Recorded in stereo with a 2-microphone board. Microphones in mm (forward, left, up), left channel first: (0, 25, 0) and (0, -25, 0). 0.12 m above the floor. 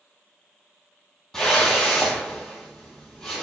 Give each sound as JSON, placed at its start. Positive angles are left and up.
{"t": 1.3, "sound": "a whoosh", "side_deg": 10, "distance_m": 0.8}